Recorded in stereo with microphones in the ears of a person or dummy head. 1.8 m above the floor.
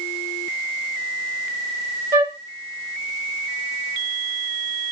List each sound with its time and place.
2.1 s a flute: 10° right (ahead or behind), 1.3 m